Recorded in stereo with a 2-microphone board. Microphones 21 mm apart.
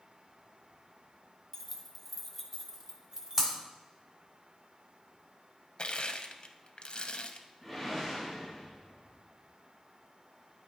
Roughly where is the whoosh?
Centre.